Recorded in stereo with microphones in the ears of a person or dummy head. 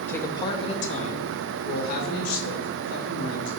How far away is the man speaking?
About 0.8 m.